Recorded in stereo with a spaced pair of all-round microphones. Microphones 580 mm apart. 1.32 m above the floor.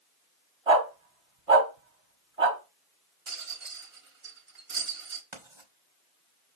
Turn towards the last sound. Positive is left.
turn(degrees=-50)  # may be behind; listen again after turning